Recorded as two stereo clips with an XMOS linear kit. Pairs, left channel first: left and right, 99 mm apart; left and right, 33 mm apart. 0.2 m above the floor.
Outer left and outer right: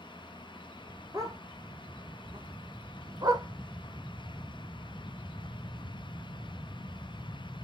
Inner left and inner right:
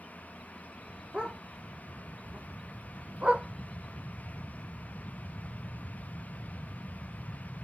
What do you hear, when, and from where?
1.1 s a dog barking: 35° right (ahead or behind), 1.6 m